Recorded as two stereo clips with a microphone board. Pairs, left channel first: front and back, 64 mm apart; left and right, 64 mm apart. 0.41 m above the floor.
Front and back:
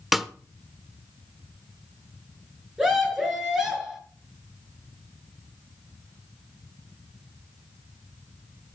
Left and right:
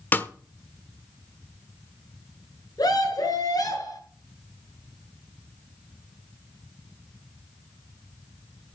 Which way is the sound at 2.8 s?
100° left.